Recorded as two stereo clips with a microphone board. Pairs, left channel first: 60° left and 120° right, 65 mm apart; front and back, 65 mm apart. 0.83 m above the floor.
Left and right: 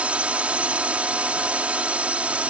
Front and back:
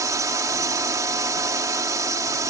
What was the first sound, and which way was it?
A drone, 175° left.